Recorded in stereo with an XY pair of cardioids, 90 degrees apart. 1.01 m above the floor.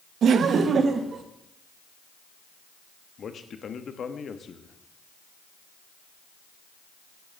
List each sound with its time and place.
0.2 s laughter: 70° right, 0.8 m; by 1.2 s 50° right, 1.2 m
3.2 s a man speaking: 55° left, 1.2 m